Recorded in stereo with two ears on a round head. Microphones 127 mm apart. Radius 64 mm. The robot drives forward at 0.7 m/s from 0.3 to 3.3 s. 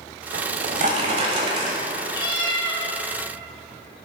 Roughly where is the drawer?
Right.